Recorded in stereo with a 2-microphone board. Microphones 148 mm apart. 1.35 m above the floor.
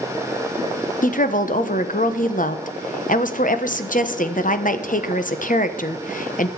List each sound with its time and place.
1.0 s a woman speaking: 60° left (ahead or behind), 1.0 m